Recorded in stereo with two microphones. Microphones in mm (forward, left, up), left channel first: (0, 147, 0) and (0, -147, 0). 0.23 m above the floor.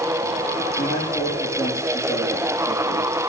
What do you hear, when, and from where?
0.8 s a man speaking: 15° left (ahead or behind), 9 m